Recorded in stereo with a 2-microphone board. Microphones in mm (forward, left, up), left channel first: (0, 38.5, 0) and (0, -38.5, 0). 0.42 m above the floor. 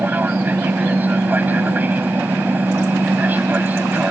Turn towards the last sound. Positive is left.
turn(degrees=-20)  # may be behind; listen again after turning